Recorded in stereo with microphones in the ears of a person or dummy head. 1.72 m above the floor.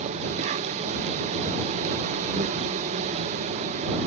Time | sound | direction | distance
0.0 | an insect | 40° right (ahead or behind) | ?